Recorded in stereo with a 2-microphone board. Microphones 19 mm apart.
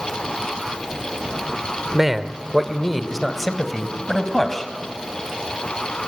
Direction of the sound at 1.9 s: 15° right (ahead or behind).